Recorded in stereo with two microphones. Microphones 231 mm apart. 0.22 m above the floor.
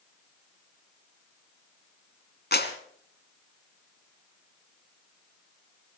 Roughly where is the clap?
Left.